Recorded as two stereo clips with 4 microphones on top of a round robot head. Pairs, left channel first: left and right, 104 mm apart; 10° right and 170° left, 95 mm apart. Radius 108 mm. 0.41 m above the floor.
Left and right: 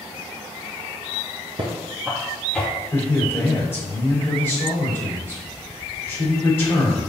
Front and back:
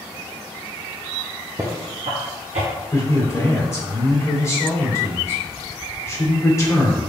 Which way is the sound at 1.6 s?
125° right.